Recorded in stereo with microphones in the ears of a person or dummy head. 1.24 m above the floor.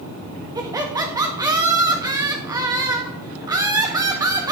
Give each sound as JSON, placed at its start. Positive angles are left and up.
{"t": 0.6, "sound": "laughter", "side_deg": -30, "distance_m": 1.6}